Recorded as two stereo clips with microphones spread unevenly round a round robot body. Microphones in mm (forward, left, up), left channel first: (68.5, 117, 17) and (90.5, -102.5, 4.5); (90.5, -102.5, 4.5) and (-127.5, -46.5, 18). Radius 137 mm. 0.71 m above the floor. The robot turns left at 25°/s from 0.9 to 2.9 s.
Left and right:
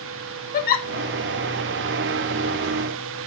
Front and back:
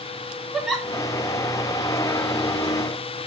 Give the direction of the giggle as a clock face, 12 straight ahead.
10 o'clock.